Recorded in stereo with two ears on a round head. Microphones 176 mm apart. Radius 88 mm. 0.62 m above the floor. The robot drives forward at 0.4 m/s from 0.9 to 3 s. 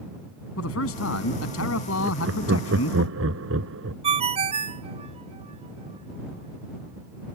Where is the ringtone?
30° right (ahead or behind).